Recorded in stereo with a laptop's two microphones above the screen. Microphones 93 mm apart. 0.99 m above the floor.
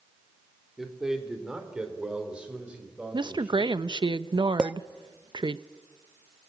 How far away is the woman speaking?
About 0.9 m.